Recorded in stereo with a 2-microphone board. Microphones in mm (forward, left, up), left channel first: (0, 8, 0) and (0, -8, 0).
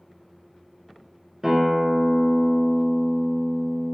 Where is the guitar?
10° right (ahead or behind), 1.0 m.